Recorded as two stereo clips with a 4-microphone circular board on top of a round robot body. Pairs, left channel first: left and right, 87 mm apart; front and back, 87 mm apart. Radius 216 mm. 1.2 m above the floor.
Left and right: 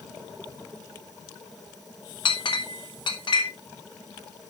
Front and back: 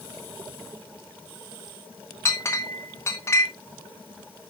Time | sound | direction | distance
2.2 | a clink | 60° left | 1.5 m